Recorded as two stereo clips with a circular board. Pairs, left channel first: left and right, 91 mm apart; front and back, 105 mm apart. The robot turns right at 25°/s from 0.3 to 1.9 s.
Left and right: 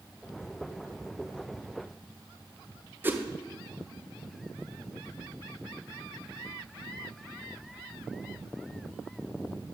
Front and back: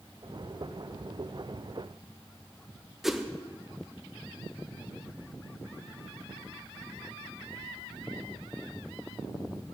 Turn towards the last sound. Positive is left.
turn(degrees=-95)